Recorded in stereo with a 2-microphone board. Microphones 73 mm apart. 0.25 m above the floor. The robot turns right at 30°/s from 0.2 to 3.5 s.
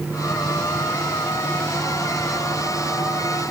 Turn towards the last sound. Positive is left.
No sound to turn to.